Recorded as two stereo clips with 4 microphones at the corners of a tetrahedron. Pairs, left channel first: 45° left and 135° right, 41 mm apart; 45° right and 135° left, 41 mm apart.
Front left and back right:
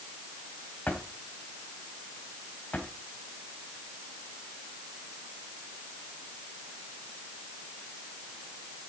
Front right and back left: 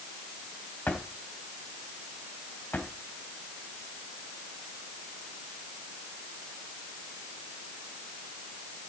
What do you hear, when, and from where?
0.9 s a drawer: straight ahead, 2.0 m